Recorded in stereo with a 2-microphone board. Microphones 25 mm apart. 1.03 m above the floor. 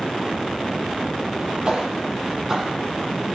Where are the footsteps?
30° right (ahead or behind), 1.2 m; by 2.7 s 10° right (ahead or behind), 1.5 m.